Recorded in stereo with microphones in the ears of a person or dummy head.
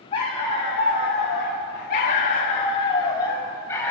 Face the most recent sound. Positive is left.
turn(degrees=15)  # may be behind; listen again after turning